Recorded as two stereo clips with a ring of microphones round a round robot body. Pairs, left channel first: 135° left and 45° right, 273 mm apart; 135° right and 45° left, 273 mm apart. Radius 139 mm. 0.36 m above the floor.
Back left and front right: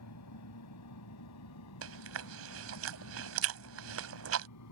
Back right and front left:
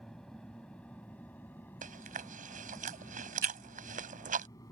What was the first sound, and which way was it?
An aircraft, 140° left.